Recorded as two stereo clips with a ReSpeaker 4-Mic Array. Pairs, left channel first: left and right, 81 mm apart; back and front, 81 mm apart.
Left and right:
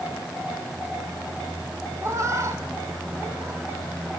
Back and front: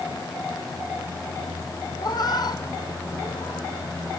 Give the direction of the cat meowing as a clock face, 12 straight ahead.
5 o'clock.